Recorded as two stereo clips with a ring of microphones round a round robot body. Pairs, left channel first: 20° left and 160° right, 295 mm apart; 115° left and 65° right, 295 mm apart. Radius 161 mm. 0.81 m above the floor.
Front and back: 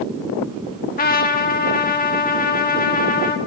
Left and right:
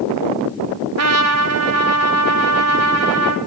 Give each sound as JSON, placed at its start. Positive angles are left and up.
{"t": 1.0, "sound": "a trumpet", "azimuth_deg": -35, "distance_m": 1.5}